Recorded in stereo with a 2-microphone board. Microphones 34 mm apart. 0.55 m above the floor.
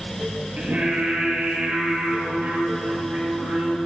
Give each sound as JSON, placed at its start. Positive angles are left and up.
{"t": 0.6, "sound": "singing", "side_deg": -40, "distance_m": 4.5}